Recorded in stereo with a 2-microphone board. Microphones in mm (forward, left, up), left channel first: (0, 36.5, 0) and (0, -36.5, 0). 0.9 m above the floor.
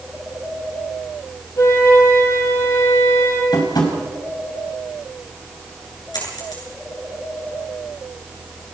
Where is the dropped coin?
70° left (ahead or behind), 7.5 m.